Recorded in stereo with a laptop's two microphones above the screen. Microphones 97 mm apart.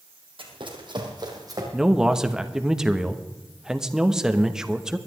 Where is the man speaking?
5° right (ahead or behind), 1.1 m.